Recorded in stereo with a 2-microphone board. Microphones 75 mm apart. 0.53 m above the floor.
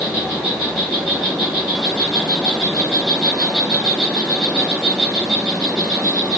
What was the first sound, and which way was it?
An insect, 10° left (ahead or behind).